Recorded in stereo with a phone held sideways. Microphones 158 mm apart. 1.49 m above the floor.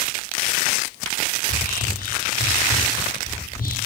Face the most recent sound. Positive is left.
turn(degrees=65)  # may be behind; listen again after turning